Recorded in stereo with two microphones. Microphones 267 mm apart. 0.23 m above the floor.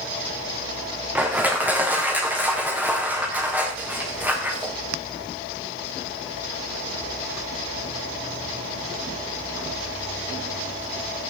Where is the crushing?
5° right (ahead or behind), 4 m.